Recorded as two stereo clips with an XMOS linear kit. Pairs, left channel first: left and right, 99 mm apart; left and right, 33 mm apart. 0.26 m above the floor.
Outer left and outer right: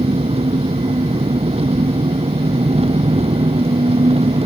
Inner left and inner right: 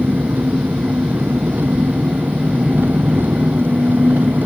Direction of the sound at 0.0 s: 85° right.